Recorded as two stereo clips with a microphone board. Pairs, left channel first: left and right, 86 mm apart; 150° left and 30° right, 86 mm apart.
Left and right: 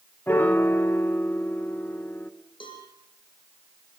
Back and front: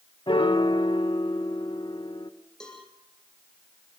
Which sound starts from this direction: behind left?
A piano, at 0.3 s.